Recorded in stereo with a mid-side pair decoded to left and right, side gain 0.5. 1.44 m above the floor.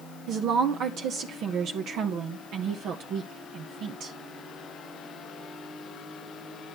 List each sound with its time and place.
0.3 s a woman speaking: 65° right, 1.3 m